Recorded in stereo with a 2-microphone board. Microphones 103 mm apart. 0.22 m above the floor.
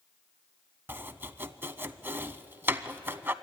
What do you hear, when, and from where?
0.9 s chopping: 20° right (ahead or behind), 0.6 m